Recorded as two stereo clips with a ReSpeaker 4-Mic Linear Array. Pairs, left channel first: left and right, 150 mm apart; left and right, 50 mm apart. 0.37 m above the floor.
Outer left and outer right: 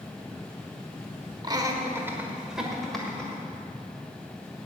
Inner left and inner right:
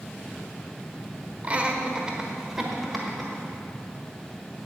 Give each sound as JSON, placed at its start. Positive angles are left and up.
{"t": 1.4, "sound": "laughter", "side_deg": -25, "distance_m": 1.2}